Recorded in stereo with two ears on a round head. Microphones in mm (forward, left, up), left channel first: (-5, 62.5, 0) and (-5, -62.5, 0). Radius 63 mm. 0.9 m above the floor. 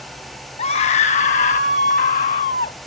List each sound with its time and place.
0.6 s a scream: 45° left (ahead or behind); by 2.8 s 60° left (ahead or behind)